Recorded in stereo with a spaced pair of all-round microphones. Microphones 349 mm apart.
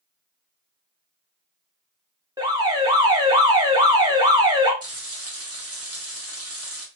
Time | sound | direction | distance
2.4 | an alarm | 10° right (ahead or behind) | 0.9 m
4.8 | frying | 40° right (ahead or behind) | 0.9 m